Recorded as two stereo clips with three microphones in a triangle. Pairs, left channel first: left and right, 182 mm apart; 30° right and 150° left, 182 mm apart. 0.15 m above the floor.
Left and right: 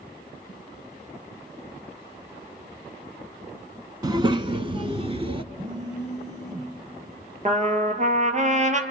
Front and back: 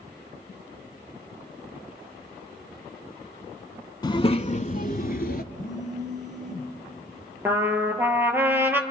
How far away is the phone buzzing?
About 9 m.